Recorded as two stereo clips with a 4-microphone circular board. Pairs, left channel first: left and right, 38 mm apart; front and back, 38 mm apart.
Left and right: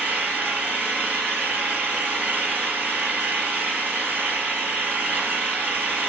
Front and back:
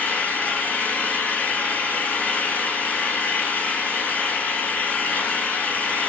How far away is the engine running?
About 4 m.